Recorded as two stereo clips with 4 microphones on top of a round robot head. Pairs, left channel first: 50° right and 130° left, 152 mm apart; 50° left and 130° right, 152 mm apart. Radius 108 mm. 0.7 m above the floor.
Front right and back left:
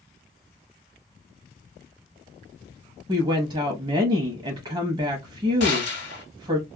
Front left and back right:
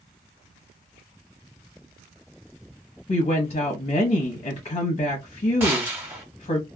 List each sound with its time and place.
3.1 s a woman speaking: 80° left, 0.8 m
5.6 s a gunshot: 60° right, 0.7 m